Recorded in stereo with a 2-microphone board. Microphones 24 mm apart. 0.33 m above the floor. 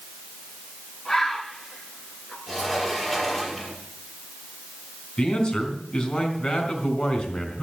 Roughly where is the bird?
Centre.